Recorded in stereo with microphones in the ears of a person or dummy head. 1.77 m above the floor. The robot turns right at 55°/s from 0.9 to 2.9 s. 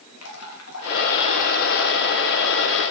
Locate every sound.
0.2 s dripping: 95° left, 3.5 m; by 2.8 s 160° right, 3.5 m